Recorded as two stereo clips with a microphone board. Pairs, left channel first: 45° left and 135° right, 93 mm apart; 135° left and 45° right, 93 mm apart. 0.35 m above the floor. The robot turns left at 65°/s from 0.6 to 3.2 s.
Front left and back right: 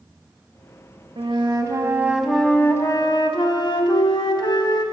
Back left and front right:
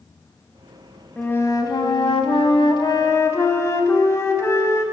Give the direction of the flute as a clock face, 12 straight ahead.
5 o'clock.